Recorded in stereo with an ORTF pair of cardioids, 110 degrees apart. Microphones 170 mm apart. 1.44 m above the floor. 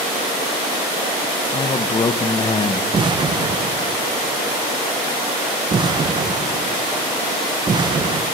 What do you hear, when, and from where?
1.5 s a man speaking: 25° left, 1.0 m
2.9 s an explosion: 25° right, 0.9 m